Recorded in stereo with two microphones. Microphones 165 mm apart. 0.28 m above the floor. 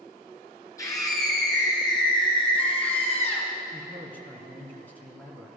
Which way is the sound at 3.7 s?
10° left (ahead or behind).